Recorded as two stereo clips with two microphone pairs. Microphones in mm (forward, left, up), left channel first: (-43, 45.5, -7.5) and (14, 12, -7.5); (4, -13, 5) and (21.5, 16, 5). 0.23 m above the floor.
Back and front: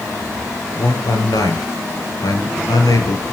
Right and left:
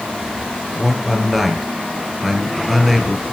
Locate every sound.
0.8 s a man speaking: 145° left, 3.5 m